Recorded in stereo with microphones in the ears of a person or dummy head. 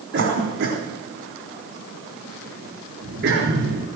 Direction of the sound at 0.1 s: 65° right (ahead or behind).